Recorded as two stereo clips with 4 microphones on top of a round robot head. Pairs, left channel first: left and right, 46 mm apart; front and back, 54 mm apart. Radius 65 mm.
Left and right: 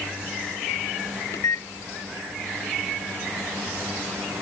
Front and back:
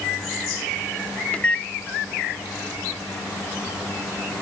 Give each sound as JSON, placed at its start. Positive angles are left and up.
{"t": 1.3, "sound": "a microwave", "azimuth_deg": 70}